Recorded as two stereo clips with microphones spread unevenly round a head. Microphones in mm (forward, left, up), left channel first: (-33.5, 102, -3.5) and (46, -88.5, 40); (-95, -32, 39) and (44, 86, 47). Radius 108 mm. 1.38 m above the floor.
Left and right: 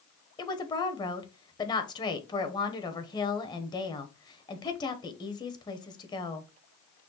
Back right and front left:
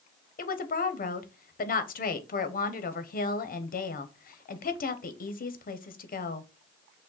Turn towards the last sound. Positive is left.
turn(degrees=180)